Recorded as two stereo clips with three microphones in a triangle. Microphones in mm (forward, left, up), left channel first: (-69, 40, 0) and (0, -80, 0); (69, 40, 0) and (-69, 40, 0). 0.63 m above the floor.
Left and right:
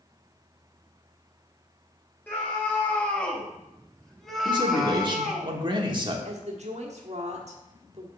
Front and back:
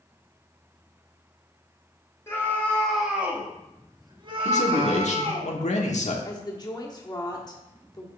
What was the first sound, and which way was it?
A scream, 50° left.